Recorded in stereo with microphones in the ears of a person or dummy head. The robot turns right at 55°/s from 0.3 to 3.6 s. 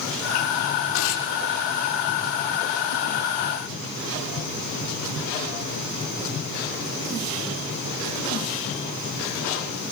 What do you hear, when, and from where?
0.9 s tearing paper: 90° left, 7 m; by 1.3 s 70° left (ahead or behind), 7 m